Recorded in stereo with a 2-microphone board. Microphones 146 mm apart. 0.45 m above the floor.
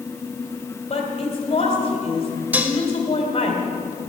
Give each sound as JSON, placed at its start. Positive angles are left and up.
{"t": 0.9, "sound": "a woman speaking", "side_deg": 40, "distance_m": 2.0}
{"t": 2.5, "sound": "dishes clattering", "side_deg": -10, "distance_m": 0.9}